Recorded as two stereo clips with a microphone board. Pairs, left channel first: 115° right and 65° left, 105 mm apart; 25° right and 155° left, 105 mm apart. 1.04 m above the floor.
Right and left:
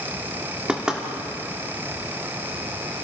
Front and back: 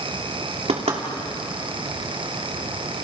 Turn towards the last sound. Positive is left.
turn(degrees=150)